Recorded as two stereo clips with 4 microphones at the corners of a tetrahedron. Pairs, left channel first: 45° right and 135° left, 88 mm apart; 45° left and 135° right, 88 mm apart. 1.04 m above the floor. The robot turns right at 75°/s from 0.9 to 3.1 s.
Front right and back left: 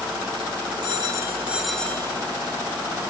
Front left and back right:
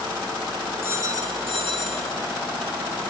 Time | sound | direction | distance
0.8 | a phone ringing | 165° left | 1.9 m